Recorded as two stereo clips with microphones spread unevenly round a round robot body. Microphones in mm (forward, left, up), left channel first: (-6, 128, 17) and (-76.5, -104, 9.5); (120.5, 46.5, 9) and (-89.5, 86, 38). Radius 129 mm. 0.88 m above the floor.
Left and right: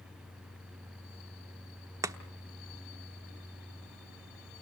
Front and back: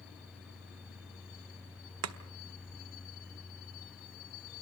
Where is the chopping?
175° left, 1.0 m.